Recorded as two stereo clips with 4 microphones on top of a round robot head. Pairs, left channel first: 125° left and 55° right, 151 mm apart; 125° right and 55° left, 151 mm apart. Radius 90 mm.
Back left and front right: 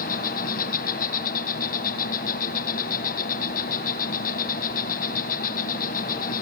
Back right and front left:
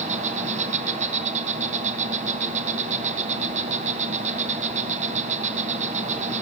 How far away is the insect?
About 1.8 m.